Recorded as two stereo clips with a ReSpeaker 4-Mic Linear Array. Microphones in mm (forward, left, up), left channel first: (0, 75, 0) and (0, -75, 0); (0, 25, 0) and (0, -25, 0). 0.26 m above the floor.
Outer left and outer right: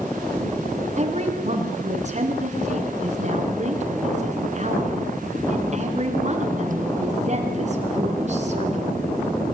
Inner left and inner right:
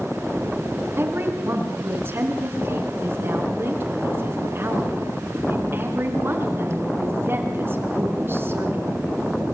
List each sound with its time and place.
1.0 s a woman speaking: 50° right (ahead or behind), 3.5 m